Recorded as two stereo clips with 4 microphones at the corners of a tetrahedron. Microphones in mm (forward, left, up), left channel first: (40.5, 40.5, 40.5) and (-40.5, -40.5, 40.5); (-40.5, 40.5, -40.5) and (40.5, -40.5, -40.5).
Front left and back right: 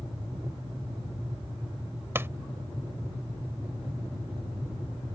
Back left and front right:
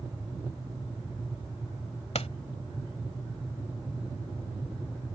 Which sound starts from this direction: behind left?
A pop, at 2.1 s.